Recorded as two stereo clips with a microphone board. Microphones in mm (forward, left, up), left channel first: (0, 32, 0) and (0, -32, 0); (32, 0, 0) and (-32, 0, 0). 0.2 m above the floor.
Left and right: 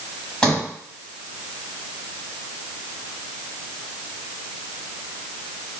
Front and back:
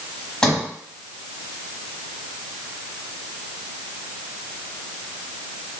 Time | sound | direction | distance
0.4 | a sliding door | 50° left | 1.4 m